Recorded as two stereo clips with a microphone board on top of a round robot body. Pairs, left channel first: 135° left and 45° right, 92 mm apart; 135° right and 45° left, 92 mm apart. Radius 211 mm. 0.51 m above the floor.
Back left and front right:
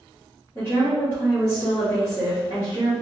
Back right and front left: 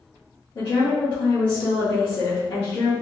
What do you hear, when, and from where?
0.6 s a woman speaking: 165° right, 1.9 m